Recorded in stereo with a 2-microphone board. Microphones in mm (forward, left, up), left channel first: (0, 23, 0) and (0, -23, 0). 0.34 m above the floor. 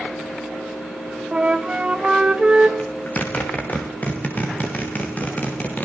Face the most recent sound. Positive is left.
turn(degrees=35)  # may be behind; listen again after turning